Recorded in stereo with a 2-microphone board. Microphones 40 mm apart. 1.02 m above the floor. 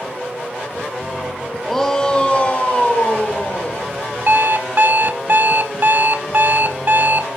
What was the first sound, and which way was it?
A shout, 5° left (ahead or behind).